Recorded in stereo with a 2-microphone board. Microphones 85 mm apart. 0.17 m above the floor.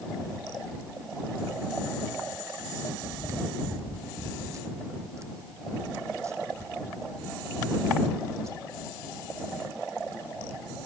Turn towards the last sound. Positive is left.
turn(degrees=-35)  # may be behind; listen again after turning